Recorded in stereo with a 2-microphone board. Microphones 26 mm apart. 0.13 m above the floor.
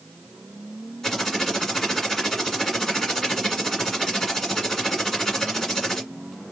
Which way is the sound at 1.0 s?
15° left (ahead or behind).